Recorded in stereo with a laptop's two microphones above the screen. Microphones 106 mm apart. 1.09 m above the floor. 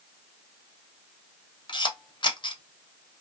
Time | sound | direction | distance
1.7 | a camera shutter | 50° left (ahead or behind) | 0.7 m